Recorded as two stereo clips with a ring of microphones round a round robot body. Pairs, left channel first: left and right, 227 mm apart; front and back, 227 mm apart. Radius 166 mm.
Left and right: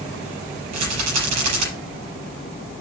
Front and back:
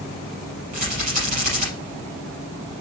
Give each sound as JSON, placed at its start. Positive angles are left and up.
{"t": 0.7, "sound": "a rattle", "azimuth_deg": -115, "distance_m": 5.0}